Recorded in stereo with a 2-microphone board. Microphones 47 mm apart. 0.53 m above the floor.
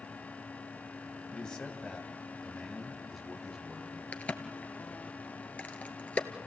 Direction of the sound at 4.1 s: 30° left (ahead or behind).